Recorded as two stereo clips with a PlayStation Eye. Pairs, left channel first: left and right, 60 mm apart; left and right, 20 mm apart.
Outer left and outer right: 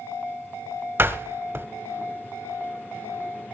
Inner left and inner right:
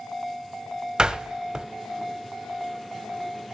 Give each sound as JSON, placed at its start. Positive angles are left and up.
{"t": 1.0, "sound": "a door slam", "side_deg": -35, "distance_m": 1.2}